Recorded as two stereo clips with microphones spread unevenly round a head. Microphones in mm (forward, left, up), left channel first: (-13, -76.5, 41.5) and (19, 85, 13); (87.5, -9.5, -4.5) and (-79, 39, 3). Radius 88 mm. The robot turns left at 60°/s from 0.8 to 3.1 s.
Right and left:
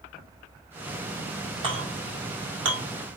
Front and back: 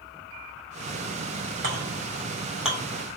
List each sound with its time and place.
1.6 s a clink: 140° left, 2.5 m; by 2.8 s 70° left, 2.5 m